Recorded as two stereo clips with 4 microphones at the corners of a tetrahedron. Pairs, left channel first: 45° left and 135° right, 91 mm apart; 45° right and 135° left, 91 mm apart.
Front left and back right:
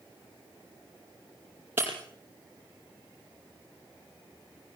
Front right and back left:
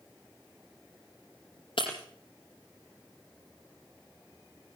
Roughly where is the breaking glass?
Ahead right.